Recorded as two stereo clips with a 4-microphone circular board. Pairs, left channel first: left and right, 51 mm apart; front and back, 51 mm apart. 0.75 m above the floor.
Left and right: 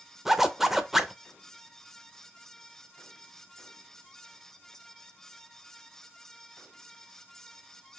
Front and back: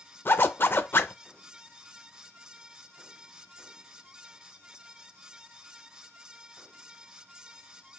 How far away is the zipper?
About 0.5 m.